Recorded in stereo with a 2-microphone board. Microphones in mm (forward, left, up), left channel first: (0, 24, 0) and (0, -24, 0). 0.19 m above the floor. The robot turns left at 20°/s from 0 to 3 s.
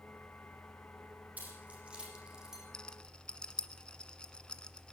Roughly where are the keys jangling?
Right.